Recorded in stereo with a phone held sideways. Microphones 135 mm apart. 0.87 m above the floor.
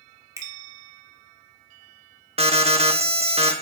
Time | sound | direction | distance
0.4 | a finger snap | 25° right (ahead or behind) | 2 m
2.4 | an alarm | 50° right (ahead or behind) | 1.1 m